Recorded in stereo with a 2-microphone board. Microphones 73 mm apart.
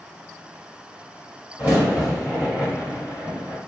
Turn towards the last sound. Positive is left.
turn(degrees=-20)  # may be behind; listen again after turning